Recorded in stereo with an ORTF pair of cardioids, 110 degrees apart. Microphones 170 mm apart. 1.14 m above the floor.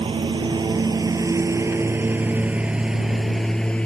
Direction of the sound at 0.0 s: 30° right.